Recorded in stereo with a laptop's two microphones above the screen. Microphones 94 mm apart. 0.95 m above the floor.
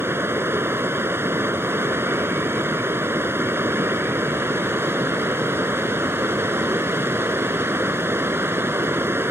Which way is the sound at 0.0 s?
25° right (ahead or behind).